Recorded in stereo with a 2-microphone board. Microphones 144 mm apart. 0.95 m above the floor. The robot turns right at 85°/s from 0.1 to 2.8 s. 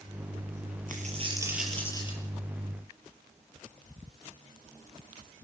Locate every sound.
0.9 s a dropped coin: 70° right, 6 m; by 2.2 s 45° left, 6 m